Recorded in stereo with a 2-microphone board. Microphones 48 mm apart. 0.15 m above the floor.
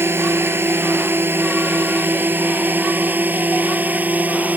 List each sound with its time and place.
0.0 s a drone: 55° right (ahead or behind); by 4.6 s 35° right (ahead or behind)